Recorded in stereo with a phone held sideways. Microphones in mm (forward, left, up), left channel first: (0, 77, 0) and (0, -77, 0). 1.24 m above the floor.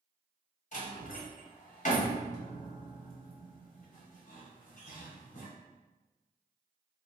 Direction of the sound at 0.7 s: 55° left (ahead or behind).